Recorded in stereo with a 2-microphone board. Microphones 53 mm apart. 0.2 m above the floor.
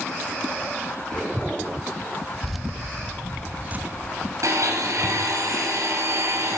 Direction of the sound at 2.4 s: 5° left (ahead or behind).